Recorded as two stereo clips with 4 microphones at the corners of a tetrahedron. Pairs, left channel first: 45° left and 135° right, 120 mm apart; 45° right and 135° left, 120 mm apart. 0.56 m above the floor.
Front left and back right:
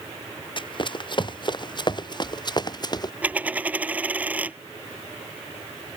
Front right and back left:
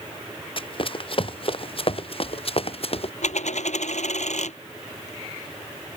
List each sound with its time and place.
0.6 s running footsteps: straight ahead; by 3.1 s 10° right
3.2 s a dropped coin: 60° right